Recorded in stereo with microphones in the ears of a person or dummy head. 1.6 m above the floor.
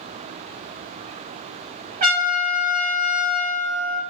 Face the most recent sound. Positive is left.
turn(degrees=-35)  # may be behind; listen again after turning